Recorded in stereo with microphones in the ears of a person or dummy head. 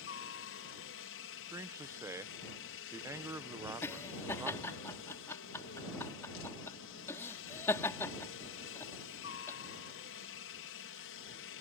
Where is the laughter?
10° left (ahead or behind).